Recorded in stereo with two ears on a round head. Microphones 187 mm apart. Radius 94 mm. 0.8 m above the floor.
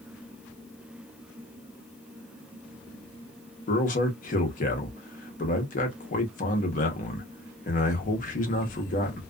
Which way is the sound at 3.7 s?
40° left (ahead or behind).